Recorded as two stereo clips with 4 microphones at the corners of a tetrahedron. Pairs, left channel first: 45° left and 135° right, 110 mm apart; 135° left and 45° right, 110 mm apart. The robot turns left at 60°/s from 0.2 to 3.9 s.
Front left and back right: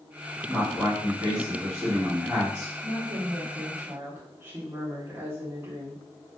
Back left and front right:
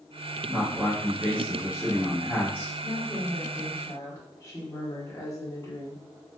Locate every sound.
0.5 s a man speaking: 45° right, 1.3 m; by 2.7 s straight behind, 1.3 m
2.8 s a woman speaking: 130° right, 0.8 m; by 6.0 s 165° left, 0.8 m